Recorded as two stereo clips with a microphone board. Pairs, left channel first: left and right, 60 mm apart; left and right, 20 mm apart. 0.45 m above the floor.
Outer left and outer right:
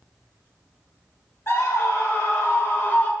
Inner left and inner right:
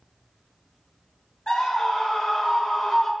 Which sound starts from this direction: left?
A scream, at 1.5 s.